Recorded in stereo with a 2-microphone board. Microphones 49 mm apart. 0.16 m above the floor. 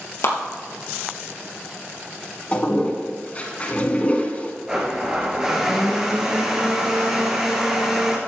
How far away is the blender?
About 3 m.